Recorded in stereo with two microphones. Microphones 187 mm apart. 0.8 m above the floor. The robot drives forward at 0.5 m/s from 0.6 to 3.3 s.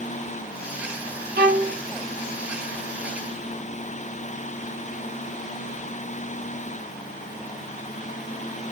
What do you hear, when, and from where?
1.4 s a violin: 60° right (ahead or behind), 0.7 m; by 1.8 s 55° right (ahead or behind), 0.7 m